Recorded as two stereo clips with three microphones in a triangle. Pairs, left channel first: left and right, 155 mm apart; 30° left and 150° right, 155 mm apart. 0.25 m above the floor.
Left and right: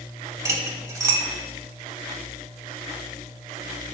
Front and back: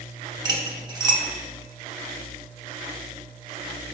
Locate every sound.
0.5 s cutlery clinking: 140° right, 0.5 m